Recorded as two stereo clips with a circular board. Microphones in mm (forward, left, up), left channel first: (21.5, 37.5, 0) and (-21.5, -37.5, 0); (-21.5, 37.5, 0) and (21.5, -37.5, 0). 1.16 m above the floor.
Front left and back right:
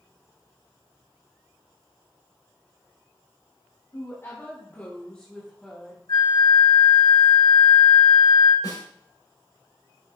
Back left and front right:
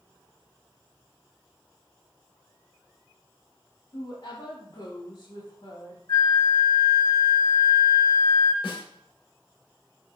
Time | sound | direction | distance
3.9 | a woman speaking | 115° left | 3 m
6.1 | a flute | 85° left | 2.5 m
8.6 | a snare drum | 105° left | 4.5 m